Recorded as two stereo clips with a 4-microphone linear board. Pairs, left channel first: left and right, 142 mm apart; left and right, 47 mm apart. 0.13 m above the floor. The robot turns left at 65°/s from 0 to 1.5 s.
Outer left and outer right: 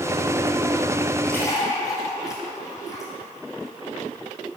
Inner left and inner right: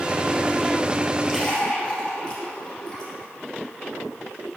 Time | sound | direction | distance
1.2 | a splash | 5° left (ahead or behind) | 3 m